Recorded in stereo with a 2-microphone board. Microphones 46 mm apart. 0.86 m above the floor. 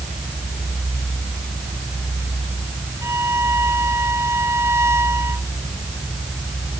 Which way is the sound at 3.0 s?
75° right (ahead or behind).